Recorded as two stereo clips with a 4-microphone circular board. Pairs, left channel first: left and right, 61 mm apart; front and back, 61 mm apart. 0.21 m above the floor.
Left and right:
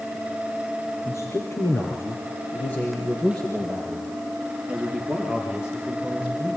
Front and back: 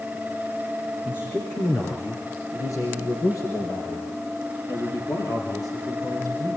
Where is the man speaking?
50° left, 4.5 m; by 6.6 s 20° right, 7.5 m.